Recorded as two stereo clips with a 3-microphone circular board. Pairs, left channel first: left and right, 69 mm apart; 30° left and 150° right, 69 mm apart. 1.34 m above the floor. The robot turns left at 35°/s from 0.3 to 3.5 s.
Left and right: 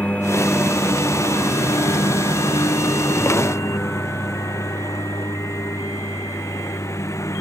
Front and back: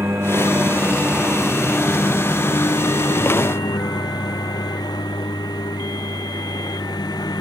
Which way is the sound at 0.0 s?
160° left.